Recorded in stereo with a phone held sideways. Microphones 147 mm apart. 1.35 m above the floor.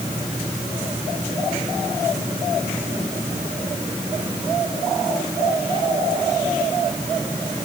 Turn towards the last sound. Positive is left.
No sound to turn to.